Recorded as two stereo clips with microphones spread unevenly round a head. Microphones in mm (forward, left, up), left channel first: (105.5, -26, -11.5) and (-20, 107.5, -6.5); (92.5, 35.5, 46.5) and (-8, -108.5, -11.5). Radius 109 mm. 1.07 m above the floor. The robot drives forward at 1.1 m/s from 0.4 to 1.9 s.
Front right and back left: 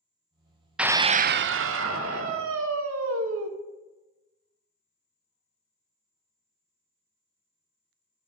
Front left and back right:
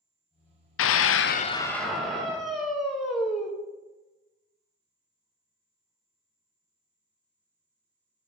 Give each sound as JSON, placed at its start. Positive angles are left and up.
{"t": 0.8, "sound": "a scream", "azimuth_deg": 45, "distance_m": 0.7}